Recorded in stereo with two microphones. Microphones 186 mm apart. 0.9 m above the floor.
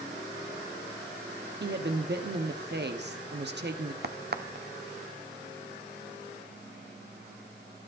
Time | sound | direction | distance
1.6 | a woman speaking | 65° right (ahead or behind) | 1.2 m
4.0 | a crack | 60° right (ahead or behind) | 0.7 m